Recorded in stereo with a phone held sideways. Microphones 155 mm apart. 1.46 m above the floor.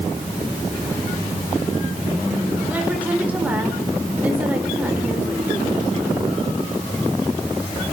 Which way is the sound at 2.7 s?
10° right (ahead or behind).